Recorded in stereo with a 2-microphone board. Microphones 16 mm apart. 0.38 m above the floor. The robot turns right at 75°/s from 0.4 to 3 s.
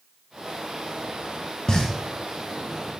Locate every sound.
1.7 s a pop: 45° left (ahead or behind), 2.0 m; by 3.0 s 40° left (ahead or behind), 2.0 m